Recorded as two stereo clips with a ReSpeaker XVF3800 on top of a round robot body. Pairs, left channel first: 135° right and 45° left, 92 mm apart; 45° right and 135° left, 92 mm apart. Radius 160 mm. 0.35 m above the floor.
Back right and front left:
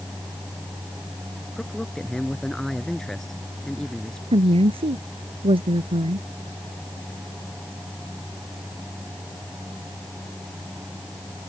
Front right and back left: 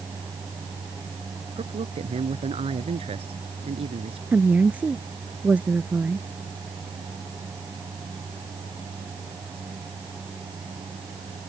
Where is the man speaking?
140° left.